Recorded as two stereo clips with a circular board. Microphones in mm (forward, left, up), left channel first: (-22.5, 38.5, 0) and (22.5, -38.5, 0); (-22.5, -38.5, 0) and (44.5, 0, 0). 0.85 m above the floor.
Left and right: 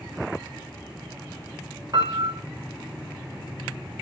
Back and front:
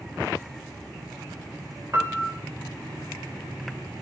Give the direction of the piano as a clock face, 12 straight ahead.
1 o'clock.